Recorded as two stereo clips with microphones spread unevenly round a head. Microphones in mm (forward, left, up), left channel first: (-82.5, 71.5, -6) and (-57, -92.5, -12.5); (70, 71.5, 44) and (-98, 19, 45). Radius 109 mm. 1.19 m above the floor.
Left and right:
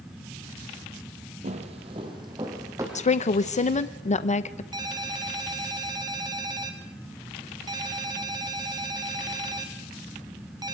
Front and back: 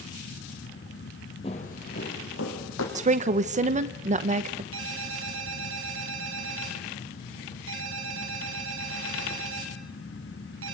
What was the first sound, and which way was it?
Footsteps, 40° right.